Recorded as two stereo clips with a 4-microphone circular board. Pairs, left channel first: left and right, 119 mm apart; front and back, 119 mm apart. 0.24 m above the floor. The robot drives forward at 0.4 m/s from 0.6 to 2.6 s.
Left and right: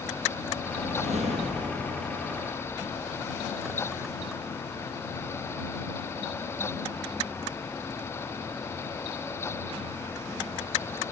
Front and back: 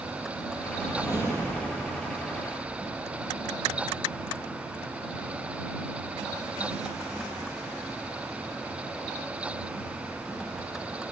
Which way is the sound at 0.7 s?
110° right.